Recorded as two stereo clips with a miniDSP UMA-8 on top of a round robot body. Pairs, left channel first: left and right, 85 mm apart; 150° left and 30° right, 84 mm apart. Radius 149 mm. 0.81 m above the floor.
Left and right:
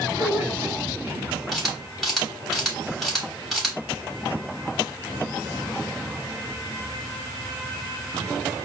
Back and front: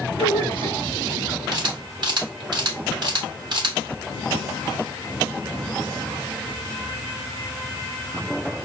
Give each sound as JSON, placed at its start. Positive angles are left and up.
{"t": 0.2, "sound": "a man speaking", "azimuth_deg": -30, "distance_m": 2.5}
{"t": 1.5, "sound": "a camera shutter", "azimuth_deg": 0, "distance_m": 3.5}